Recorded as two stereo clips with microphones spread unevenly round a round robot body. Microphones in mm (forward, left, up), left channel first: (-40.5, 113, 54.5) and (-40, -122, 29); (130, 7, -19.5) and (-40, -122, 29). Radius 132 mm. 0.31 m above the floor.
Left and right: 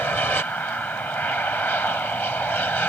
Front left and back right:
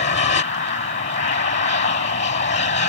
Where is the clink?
I don't hear a clink.